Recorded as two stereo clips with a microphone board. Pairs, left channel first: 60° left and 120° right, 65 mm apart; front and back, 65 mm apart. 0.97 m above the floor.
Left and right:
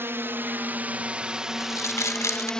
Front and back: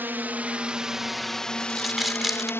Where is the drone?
140° right; by 2.6 s 10° right.